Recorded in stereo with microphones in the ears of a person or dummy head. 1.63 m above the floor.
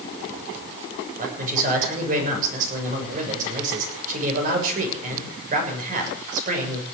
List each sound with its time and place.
1.2 s a man speaking: 50° right (ahead or behind), 6.5 m